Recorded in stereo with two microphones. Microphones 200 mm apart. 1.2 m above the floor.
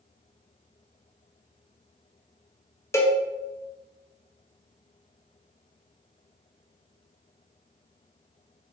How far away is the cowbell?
About 0.6 m.